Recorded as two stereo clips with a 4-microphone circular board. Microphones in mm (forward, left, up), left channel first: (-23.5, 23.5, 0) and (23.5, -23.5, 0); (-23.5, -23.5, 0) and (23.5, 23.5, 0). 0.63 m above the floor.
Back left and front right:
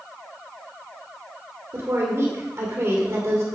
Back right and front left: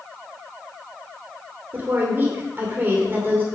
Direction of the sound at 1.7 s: 5° right.